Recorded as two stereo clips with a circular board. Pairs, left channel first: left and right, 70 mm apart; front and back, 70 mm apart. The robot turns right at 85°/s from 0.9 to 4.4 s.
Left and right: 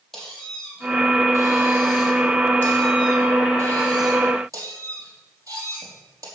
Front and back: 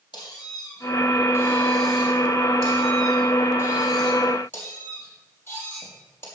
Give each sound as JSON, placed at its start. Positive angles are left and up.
{"t": 0.1, "sound": "a squeak", "azimuth_deg": 5, "distance_m": 3.5}